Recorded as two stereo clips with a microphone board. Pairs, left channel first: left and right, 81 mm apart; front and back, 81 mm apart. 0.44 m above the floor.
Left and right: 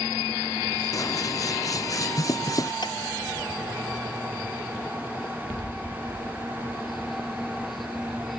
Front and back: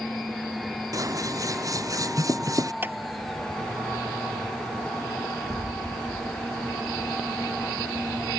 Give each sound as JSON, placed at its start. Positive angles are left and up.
{"t": 0.9, "sound": "scissors", "azimuth_deg": 135}
{"t": 2.8, "sound": "a clap", "azimuth_deg": 115}